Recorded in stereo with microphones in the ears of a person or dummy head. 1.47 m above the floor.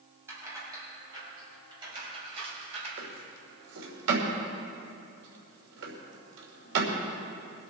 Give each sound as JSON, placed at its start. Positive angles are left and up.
{"t": 0.3, "sound": "keys jangling", "side_deg": -15, "distance_m": 5.5}
{"t": 3.0, "sound": "a drawer", "side_deg": -70, "distance_m": 3.0}